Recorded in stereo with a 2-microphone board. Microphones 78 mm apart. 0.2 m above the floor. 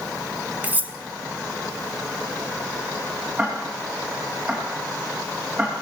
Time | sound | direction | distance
0.6 | cutlery clinking | 25° right (ahead or behind) | 1.2 m
3.4 | ticking | 20° right (ahead or behind) | 10 m